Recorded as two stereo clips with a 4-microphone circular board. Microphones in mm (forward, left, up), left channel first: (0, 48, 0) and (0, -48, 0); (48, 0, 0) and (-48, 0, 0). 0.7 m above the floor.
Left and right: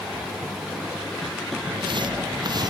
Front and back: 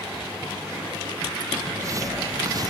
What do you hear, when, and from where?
1.6 s footsteps: 125° right; by 2.7 s 135° right